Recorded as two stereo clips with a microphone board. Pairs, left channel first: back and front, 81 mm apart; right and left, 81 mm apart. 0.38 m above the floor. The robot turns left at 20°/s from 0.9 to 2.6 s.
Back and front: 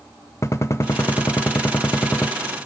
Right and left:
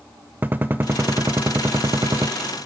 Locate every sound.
0.4 s a gunshot: 145° left, 0.5 m; by 2.3 s 120° left, 0.5 m